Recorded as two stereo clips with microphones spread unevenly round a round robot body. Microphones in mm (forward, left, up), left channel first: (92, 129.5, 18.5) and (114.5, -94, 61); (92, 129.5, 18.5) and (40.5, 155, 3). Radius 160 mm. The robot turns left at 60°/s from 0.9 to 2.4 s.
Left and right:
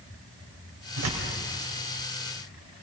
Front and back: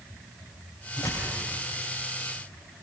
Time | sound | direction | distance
1.0 | tearing paper | 75° right | 4 m